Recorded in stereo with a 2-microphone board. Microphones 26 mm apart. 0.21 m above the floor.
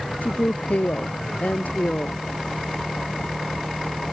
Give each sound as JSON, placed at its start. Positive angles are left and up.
{"t": 0.2, "sound": "a woman speaking", "side_deg": 80}